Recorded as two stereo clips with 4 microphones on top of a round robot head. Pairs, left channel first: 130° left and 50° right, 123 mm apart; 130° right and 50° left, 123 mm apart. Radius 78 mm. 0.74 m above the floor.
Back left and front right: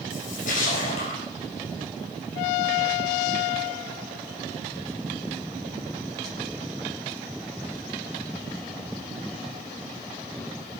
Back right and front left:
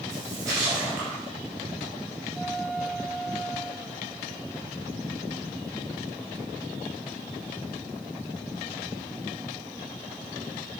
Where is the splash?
110° left, 5 m.